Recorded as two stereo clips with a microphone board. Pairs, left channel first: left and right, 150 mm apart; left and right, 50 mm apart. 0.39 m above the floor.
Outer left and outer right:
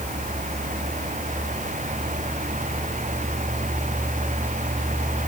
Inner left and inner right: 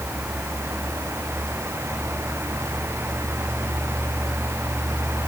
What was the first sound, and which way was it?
Only background noise.